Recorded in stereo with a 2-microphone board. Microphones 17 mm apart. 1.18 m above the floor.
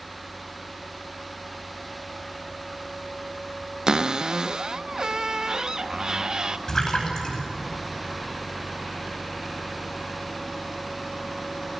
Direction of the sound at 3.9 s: 40° right (ahead or behind).